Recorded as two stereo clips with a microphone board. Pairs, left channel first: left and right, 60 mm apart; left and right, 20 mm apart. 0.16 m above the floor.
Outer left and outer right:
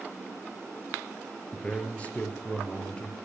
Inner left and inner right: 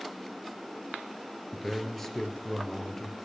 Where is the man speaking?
20° left (ahead or behind), 3 m.